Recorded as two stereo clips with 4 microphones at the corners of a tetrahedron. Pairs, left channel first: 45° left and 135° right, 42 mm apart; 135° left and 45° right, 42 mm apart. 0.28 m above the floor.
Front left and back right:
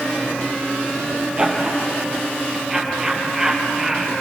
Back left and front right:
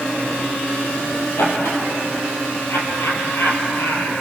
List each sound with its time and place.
1.4 s laughter: 155° left, 6.5 m; by 4.1 s 140° left, 5 m